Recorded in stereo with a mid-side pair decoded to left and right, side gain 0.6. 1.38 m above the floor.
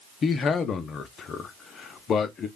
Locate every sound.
0.2 s a man speaking: 40° left, 0.7 m